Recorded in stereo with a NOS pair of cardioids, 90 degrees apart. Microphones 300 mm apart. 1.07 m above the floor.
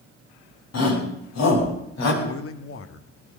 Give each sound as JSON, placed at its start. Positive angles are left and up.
{"t": 0.7, "sound": "a shout", "azimuth_deg": 55, "distance_m": 9.0}
{"t": 2.2, "sound": "a man speaking", "azimuth_deg": 45, "distance_m": 1.7}